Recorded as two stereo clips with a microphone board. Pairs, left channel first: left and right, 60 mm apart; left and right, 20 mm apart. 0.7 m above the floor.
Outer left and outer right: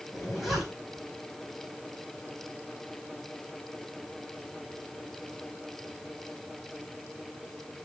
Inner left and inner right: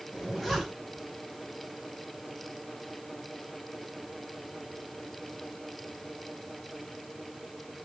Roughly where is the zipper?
Centre.